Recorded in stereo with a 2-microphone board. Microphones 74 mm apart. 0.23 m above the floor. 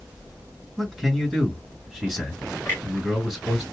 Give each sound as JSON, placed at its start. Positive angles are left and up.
{"t": 0.8, "sound": "a man speaking", "side_deg": 5, "distance_m": 3.0}
{"t": 2.6, "sound": "a clunk", "side_deg": 25, "distance_m": 2.5}